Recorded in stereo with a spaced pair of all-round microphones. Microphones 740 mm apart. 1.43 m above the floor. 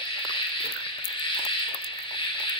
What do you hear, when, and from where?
0.0 s an insect: 10° left (ahead or behind), 0.7 m